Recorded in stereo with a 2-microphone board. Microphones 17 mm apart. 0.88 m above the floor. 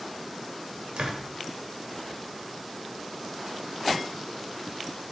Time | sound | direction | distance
1.0 | a door slam | 80° right | 3 m